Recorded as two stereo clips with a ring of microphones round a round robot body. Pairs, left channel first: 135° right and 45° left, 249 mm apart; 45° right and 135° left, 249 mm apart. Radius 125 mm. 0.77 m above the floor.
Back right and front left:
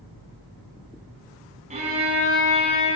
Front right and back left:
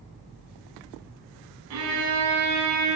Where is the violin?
110° left, 3.5 m.